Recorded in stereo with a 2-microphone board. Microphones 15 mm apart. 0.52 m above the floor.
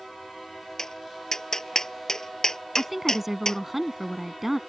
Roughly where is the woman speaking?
Centre.